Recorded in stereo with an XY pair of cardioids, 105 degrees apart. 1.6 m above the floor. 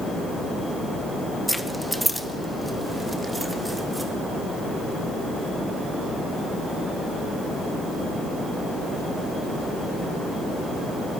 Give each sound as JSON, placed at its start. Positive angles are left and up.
{"t": 1.5, "sound": "keys jangling", "azimuth_deg": -5, "distance_m": 1.7}